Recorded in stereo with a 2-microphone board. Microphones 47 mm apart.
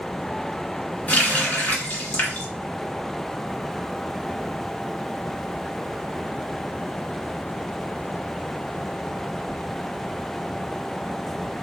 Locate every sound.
1.1 s a running tap: 35° left (ahead or behind), 1.5 m